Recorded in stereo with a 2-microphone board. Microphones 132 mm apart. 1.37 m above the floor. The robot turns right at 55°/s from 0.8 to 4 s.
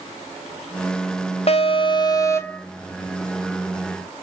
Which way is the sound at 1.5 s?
105° left.